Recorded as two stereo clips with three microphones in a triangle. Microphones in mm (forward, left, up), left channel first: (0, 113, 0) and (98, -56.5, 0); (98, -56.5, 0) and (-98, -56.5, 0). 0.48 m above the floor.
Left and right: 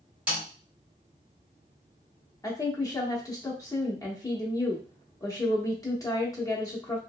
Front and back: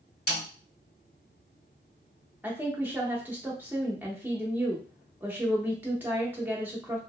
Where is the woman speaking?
125° left, 0.8 m.